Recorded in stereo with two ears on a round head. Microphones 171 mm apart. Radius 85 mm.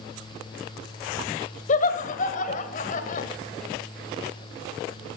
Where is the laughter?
45° left (ahead or behind), 1.6 m.